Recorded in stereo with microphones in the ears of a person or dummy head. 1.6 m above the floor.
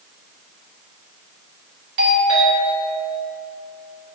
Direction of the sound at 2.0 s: 75° right (ahead or behind).